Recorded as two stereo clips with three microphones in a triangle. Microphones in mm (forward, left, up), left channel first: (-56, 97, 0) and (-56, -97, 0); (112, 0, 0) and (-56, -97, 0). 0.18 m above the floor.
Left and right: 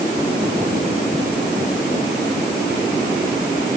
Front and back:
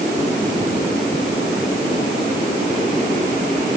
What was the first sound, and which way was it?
Only background noise.